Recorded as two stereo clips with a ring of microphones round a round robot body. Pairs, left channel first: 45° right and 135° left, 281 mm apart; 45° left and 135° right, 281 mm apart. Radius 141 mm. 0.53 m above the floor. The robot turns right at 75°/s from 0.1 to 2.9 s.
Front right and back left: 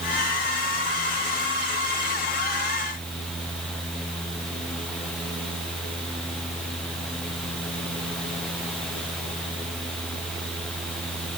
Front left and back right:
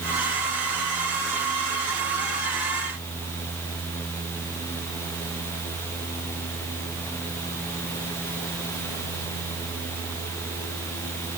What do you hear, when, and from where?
Only background noise.